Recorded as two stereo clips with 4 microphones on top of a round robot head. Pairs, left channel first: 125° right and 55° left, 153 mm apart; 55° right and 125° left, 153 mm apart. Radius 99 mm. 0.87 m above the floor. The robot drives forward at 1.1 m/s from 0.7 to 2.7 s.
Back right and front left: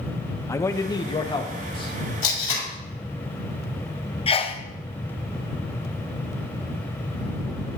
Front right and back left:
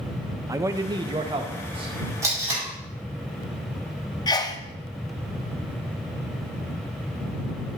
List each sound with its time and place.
0.5 s a man speaking: straight behind, 0.7 m
2.2 s tape being pulled: 165° right, 5 m
4.3 s a sneeze: 105° right, 0.8 m